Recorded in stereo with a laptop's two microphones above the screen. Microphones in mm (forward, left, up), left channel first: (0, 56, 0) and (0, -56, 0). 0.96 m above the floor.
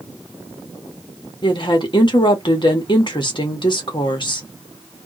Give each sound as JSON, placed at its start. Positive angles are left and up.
{"t": 1.4, "sound": "a woman speaking", "side_deg": 45, "distance_m": 1.5}